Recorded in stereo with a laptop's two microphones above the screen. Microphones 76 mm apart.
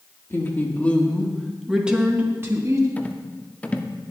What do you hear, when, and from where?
0.3 s a woman speaking: 30° left (ahead or behind), 2.5 m; by 2.9 s 40° right (ahead or behind), 2.5 m
3.0 s a rattle: 20° left (ahead or behind), 0.6 m